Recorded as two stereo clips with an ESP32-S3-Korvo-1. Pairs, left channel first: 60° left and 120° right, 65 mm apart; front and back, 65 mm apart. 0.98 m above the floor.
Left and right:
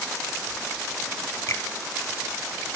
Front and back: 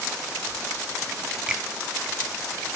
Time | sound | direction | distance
1.5 | a finger snap | 105° left | 0.8 m